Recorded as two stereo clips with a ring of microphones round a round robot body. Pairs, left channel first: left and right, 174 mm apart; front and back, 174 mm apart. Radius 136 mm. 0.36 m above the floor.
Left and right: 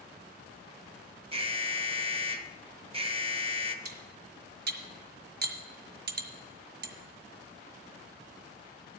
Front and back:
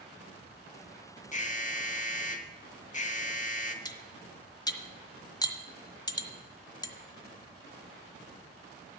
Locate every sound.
1.3 s an alarm: 40° right, 1.0 m
3.9 s cutlery clinking: 65° right, 1.4 m